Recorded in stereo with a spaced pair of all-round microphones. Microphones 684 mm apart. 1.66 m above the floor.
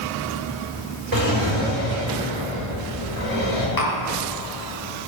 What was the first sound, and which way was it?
A drawer, 40° right (ahead or behind).